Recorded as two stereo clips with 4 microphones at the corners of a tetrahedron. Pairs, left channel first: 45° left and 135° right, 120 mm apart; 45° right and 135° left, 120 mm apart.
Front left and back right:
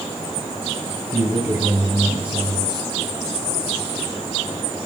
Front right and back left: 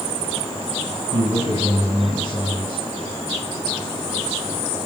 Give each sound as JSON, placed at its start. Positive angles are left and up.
{"t": 1.1, "sound": "a man speaking", "azimuth_deg": 180, "distance_m": 3.0}